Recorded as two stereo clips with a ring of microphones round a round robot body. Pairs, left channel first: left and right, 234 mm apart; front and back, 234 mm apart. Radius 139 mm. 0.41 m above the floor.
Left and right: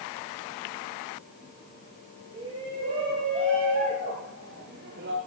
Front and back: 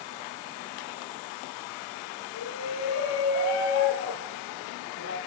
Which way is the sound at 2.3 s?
15° right.